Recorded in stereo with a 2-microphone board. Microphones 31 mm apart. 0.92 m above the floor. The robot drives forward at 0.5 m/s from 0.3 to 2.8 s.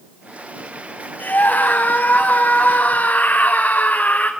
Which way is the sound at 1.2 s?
65° left (ahead or behind).